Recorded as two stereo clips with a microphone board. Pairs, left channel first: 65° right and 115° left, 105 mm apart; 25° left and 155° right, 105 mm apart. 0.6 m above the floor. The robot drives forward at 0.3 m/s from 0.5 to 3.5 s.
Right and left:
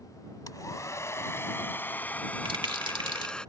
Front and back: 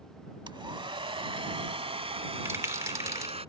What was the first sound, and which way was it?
A hair dryer, 120° right.